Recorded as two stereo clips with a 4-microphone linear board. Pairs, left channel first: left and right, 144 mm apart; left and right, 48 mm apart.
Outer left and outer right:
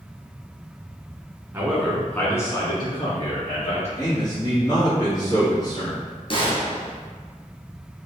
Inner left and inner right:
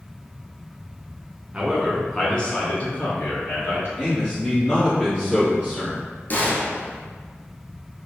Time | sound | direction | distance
1.5 | a man speaking | 15° right (ahead or behind) | 1.3 m
4.0 | a man speaking | 25° left (ahead or behind) | 1.6 m
6.3 | a gunshot | 40° left (ahead or behind) | 0.9 m